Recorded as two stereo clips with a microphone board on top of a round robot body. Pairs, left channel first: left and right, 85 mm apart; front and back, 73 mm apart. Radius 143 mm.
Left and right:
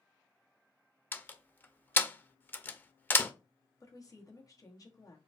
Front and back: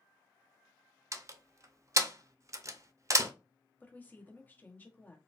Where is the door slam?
150° left, 0.6 m.